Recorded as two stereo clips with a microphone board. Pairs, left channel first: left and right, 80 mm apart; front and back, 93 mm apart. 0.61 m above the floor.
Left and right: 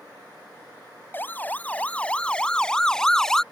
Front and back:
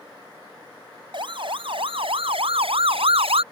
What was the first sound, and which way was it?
A siren, 155° left.